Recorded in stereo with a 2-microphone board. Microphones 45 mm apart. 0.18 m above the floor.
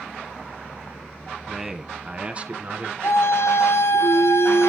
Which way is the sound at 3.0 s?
80° left.